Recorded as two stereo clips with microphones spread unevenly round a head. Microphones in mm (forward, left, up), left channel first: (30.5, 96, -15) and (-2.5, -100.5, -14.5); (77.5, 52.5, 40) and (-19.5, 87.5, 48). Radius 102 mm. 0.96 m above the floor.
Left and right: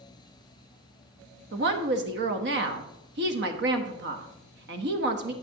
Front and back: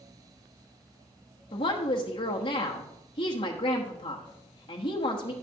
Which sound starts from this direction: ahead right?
A woman speaking, at 1.5 s.